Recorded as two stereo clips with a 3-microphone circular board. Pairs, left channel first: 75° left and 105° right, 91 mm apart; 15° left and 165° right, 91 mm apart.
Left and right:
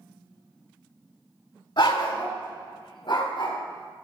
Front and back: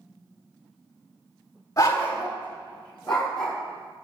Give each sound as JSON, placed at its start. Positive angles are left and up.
{"t": 1.8, "sound": "a dog barking", "azimuth_deg": 65, "distance_m": 1.5}